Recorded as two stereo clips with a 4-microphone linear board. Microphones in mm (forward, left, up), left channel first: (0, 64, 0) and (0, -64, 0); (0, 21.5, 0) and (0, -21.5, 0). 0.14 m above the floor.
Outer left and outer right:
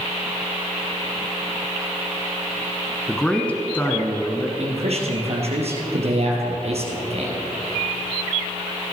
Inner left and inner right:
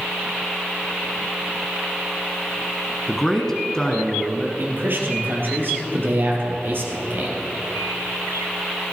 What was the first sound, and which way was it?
A man speaking, 5° left (ahead or behind).